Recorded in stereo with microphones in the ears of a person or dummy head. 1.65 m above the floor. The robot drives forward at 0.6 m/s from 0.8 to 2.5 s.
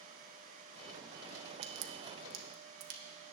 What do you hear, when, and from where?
1.6 s a crack: 70° right (ahead or behind), 1.3 m; by 3.0 s 60° right (ahead or behind), 1.5 m